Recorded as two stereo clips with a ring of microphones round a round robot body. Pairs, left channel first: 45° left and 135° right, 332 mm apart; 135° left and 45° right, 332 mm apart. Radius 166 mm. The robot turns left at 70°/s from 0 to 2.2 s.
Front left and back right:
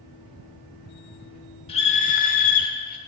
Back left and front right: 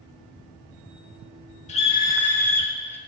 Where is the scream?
95° left, 1.0 m; by 3.0 s 60° left, 1.0 m.